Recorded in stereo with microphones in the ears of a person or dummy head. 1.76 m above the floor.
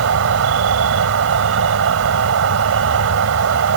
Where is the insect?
75° right (ahead or behind).